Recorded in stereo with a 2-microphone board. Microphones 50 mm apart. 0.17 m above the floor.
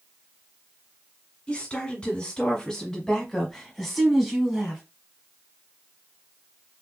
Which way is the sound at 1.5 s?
25° left (ahead or behind).